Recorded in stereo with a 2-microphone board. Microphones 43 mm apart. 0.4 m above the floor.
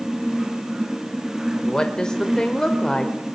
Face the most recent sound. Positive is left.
turn(degrees=20)  # may be behind; listen again after turning